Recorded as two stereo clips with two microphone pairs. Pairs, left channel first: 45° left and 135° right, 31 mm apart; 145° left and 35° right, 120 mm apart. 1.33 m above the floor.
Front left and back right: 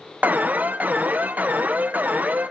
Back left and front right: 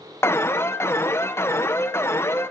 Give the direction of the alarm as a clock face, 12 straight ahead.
5 o'clock.